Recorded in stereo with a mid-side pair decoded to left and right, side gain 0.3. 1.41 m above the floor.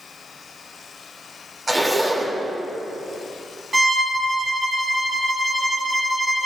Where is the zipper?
30° right, 3 m.